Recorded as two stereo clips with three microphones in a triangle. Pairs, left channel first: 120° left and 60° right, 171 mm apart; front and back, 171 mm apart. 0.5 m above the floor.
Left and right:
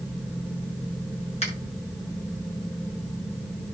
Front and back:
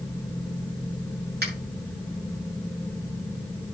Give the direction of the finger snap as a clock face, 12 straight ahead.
6 o'clock.